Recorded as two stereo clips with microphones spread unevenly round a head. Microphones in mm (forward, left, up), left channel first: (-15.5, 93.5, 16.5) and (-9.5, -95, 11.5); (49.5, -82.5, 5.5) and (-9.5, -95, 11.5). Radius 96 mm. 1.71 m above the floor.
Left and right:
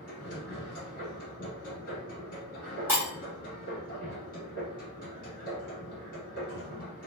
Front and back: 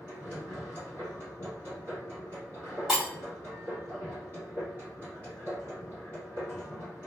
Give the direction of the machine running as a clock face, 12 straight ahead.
9 o'clock.